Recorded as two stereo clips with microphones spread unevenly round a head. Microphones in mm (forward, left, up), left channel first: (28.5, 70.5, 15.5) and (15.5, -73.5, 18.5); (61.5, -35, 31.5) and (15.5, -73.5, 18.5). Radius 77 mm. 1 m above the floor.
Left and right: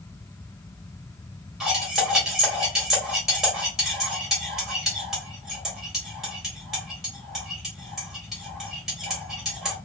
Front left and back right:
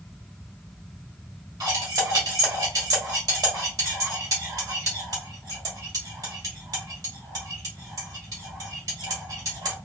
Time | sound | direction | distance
1.6 | cutlery clinking | 175° left | 1.9 m